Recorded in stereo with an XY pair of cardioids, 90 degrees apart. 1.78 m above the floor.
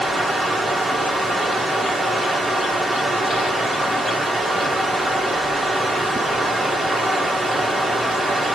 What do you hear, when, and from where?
0.0 s running water: 30° right, 1.4 m